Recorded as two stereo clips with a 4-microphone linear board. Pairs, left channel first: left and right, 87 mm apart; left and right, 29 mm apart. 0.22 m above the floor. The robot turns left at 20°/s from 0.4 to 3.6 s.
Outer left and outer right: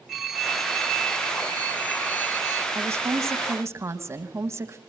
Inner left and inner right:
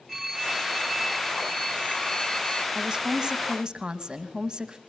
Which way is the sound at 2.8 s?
30° right (ahead or behind).